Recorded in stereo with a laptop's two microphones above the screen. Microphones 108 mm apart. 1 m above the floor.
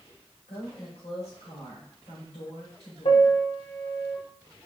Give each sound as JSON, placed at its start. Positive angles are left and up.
{"t": 0.5, "sound": "a woman speaking", "side_deg": 80, "distance_m": 4.0}
{"t": 3.0, "sound": "a piano", "side_deg": 70, "distance_m": 1.1}